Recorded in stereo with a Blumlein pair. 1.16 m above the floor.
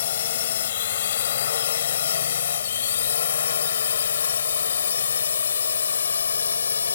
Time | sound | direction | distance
0.0 | a drone | 60° left | ?